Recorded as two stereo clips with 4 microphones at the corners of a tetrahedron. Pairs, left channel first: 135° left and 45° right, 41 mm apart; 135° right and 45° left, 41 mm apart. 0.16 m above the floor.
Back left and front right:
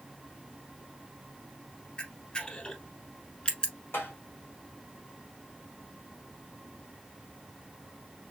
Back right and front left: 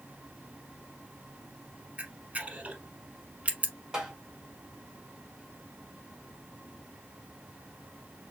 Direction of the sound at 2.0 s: 85° left.